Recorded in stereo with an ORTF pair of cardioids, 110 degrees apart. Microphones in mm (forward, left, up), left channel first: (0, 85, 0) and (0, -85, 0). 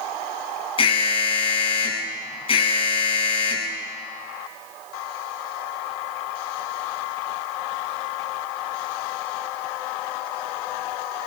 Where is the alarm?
30° left, 9 m.